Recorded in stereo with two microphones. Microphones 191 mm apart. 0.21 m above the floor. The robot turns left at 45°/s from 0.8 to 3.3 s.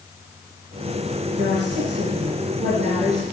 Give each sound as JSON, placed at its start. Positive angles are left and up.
{"t": 1.4, "sound": "a woman speaking", "azimuth_deg": -65, "distance_m": 3.0}